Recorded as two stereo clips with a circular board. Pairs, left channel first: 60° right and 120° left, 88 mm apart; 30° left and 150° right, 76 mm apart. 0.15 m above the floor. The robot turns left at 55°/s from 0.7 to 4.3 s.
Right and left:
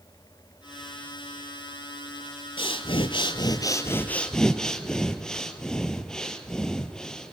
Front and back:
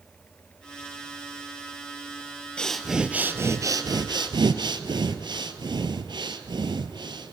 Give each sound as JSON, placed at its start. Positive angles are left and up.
{"t": 2.6, "sound": "breathing", "azimuth_deg": -45, "distance_m": 0.6}